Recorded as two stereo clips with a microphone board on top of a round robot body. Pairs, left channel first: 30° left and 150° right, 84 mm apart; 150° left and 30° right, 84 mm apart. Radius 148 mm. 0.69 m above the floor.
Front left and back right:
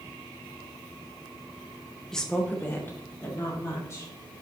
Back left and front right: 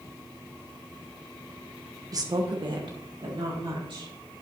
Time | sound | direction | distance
2.1 | a woman speaking | 55° right | 0.9 m